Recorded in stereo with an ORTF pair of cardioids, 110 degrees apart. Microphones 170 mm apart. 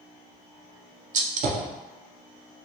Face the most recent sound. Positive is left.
turn(degrees=-50)